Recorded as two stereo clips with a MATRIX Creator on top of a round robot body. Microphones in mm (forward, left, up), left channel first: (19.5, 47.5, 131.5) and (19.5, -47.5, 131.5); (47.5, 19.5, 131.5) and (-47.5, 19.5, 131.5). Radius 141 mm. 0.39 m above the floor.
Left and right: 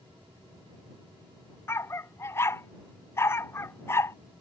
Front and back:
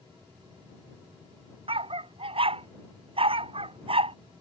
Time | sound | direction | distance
1.7 | a dog barking | 155° left | ?